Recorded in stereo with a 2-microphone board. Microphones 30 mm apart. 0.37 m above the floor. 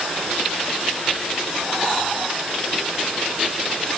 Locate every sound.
Only background noise.